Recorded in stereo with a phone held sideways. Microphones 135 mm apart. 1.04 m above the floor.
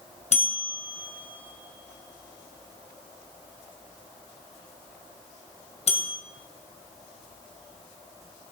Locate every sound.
0.3 s a bell: 55° left (ahead or behind), 2.5 m